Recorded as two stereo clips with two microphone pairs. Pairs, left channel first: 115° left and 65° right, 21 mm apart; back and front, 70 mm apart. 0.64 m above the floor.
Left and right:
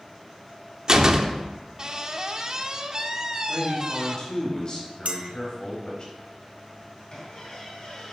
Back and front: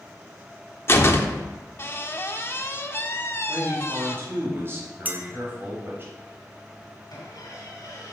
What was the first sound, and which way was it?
A door slam, 125° right.